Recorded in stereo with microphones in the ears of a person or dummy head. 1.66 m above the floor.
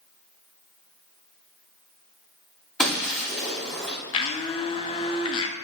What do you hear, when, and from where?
2.8 s breaking glass: 5° left (ahead or behind), 2.5 m
4.1 s a blender: 35° left (ahead or behind), 0.7 m